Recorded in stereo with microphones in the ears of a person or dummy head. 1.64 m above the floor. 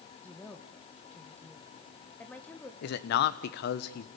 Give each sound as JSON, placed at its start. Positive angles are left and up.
{"t": 0.2, "sound": "a woman speaking", "side_deg": 10, "distance_m": 1.5}
{"t": 2.8, "sound": "a man speaking", "side_deg": 60, "distance_m": 1.2}